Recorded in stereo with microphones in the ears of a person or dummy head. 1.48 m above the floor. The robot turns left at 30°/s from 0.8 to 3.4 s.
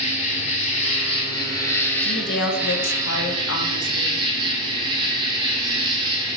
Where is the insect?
50° left, 0.9 m; by 6.4 s 30° right, 0.9 m.